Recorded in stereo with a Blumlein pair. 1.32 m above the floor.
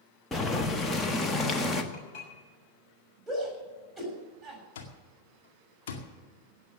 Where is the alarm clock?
55° left, 2 m.